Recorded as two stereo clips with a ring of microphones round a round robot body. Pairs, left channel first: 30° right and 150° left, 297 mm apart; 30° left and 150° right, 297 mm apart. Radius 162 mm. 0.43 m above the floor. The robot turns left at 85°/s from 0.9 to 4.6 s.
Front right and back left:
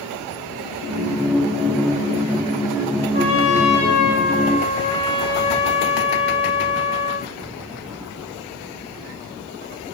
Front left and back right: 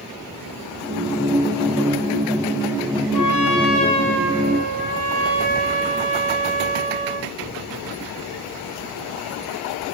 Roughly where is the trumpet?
Ahead.